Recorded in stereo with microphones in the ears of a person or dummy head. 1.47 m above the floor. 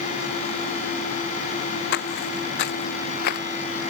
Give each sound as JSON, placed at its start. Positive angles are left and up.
{"t": 1.9, "sound": "footsteps", "side_deg": 65}